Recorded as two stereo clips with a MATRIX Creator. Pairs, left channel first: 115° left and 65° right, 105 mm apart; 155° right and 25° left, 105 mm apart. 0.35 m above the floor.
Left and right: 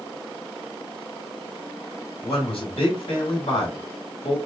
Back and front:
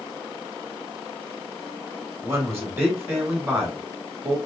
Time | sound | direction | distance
2.2 | a man speaking | 90° left | 3 m